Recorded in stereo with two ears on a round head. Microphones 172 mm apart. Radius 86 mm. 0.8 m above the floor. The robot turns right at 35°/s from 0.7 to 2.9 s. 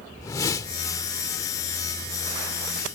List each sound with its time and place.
0.2 s a whoosh: 20° left (ahead or behind)